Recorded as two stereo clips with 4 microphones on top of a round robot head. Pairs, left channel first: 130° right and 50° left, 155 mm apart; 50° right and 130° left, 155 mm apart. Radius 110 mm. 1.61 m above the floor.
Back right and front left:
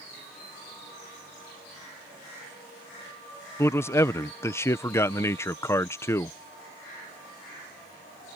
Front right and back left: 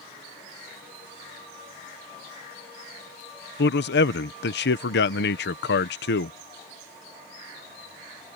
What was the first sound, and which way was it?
A man speaking, 55° right.